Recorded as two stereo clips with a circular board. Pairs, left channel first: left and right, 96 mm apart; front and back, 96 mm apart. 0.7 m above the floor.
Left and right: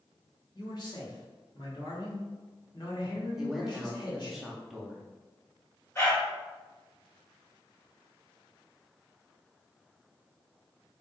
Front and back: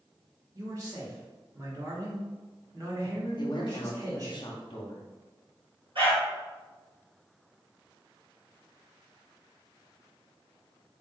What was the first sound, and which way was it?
A man speaking, 130° left.